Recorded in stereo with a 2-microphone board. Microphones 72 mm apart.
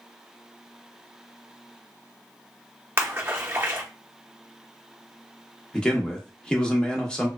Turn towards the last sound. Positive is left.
turn(degrees=15)  # may be behind; listen again after turning